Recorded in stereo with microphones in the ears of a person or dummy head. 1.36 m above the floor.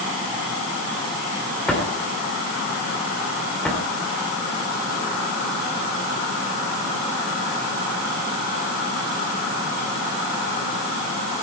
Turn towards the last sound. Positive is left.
turn(degrees=5)  # may be behind; listen again after turning